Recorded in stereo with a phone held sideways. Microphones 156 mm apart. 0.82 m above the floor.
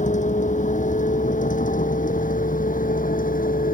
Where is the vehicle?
50° left (ahead or behind); by 3.7 s 60° left (ahead or behind).